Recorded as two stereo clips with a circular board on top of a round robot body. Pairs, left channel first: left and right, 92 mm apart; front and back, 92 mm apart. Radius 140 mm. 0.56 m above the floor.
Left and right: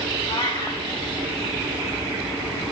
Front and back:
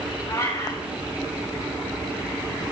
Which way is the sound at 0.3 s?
55° left.